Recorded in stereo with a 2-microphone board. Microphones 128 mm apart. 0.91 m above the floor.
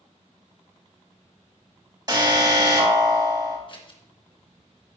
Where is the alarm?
30° right (ahead or behind), 3.5 m.